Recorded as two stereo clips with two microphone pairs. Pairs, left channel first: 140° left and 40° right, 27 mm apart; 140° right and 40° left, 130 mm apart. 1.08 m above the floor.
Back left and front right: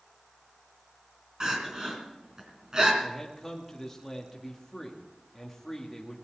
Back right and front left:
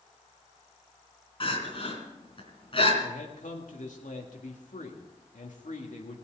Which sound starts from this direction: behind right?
A man speaking, at 3.0 s.